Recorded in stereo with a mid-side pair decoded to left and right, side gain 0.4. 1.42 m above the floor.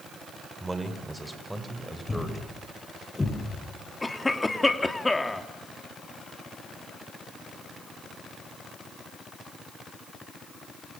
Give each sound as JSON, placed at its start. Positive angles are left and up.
{"t": 0.6, "sound": "a man speaking", "azimuth_deg": -15, "distance_m": 5.5}
{"t": 2.1, "sound": "a thud", "azimuth_deg": 25, "distance_m": 8.0}
{"t": 4.0, "sound": "a cough", "azimuth_deg": 20, "distance_m": 3.0}